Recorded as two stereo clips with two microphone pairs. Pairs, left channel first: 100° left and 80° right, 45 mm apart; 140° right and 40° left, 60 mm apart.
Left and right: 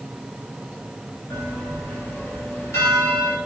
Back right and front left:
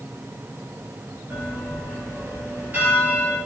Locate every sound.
1.3 s a bell: 105° left, 3 m